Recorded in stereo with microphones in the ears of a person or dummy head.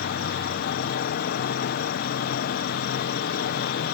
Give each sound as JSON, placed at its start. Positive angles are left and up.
{"t": 0.0, "sound": "an insect", "side_deg": 65}